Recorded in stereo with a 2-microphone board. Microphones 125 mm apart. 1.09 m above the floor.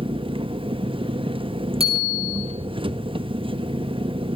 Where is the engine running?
45° right (ahead or behind), 1.0 m.